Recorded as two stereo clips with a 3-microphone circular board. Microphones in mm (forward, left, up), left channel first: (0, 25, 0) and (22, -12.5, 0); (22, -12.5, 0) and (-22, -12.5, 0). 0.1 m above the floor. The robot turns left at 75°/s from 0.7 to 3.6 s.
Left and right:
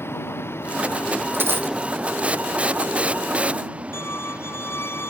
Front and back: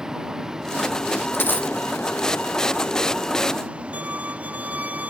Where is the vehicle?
105° left; by 5.1 s 120° right.